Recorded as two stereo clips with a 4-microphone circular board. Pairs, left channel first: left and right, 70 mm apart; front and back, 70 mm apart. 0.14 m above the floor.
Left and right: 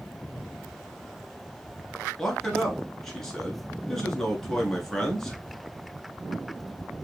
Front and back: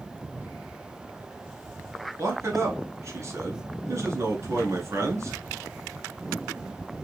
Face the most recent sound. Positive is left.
turn(degrees=170)